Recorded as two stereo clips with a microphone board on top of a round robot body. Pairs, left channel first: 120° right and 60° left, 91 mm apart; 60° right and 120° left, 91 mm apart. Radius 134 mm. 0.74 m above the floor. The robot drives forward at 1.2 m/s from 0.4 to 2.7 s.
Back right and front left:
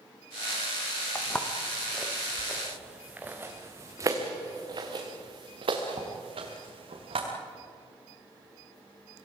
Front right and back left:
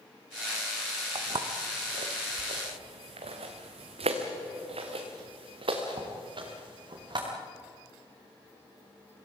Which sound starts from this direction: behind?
Footsteps, at 1.1 s.